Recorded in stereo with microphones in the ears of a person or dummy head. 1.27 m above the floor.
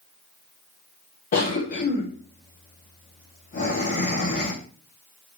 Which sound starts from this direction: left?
A cough, at 1.3 s.